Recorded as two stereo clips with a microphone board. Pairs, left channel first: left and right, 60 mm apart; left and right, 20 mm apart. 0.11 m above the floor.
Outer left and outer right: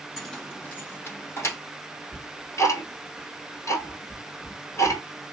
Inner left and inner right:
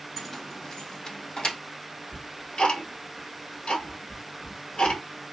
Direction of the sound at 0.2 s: 5° left (ahead or behind).